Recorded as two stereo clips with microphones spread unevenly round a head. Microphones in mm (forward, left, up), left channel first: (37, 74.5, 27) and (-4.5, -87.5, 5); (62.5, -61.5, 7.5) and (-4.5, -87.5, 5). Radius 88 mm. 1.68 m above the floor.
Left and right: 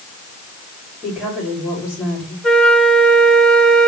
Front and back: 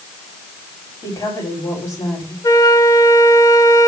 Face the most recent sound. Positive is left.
turn(degrees=-5)